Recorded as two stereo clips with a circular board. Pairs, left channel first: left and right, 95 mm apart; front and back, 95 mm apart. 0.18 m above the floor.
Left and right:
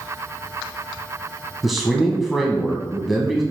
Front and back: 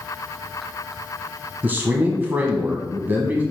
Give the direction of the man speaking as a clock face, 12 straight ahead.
6 o'clock.